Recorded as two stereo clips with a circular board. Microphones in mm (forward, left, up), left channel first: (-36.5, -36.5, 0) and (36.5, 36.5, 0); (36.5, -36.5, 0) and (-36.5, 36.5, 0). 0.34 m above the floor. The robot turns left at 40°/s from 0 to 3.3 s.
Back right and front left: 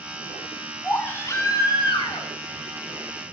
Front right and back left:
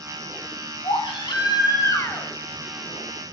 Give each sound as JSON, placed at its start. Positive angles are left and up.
{"t": 0.8, "sound": "a baby crying", "azimuth_deg": -60, "distance_m": 2.0}